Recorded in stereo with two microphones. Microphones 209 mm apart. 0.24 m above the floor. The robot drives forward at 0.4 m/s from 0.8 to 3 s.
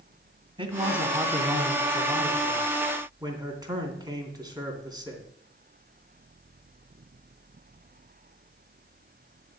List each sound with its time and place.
0.6 s a man speaking: 25° right (ahead or behind), 1.9 m; by 5.3 s 20° right (ahead or behind), 2.5 m